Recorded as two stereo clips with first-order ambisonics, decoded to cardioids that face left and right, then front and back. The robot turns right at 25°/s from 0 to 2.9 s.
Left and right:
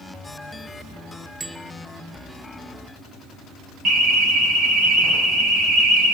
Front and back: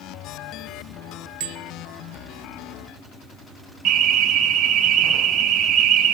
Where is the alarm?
140° right, 4 m.